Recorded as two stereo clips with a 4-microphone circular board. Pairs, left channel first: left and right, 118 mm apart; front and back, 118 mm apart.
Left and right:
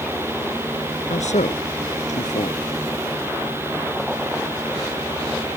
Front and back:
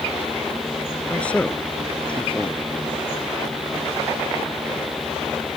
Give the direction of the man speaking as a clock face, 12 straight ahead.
9 o'clock.